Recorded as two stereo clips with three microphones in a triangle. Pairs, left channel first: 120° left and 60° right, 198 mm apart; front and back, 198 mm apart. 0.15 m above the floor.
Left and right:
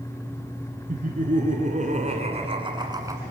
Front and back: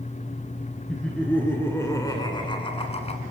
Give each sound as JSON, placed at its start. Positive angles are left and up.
{"t": 0.9, "sound": "laughter", "azimuth_deg": -85, "distance_m": 2.5}